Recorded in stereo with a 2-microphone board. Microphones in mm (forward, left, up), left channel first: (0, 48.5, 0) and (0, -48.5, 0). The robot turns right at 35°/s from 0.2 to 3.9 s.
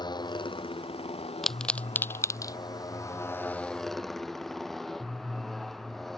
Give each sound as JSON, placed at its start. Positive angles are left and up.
{"t": 0.0, "sound": "a motorcycle", "azimuth_deg": 50}
{"t": 1.4, "sound": "a pop", "side_deg": 0}